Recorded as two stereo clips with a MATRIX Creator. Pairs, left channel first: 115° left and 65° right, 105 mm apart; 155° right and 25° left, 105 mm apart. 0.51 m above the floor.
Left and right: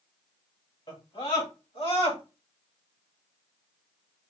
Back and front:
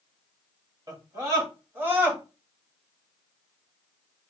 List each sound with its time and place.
0.9 s a scream: 75° left, 2.5 m; by 2.2 s 95° left, 2.5 m